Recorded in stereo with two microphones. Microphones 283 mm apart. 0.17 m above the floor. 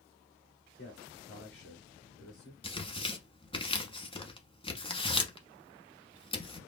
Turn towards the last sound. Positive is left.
turn(degrees=20)  # may be behind; listen again after turning